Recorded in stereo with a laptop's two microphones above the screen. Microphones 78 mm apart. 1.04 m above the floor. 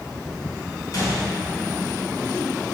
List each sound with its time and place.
0.9 s a gunshot: 50° left (ahead or behind), 1.3 m